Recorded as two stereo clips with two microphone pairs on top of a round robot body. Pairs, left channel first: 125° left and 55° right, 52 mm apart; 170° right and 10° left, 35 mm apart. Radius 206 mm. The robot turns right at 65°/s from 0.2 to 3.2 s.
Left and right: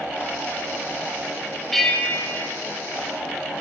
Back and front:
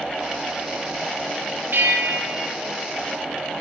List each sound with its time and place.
1.7 s a bell: 35° left, 4.5 m; by 2.5 s 90° left, 4.5 m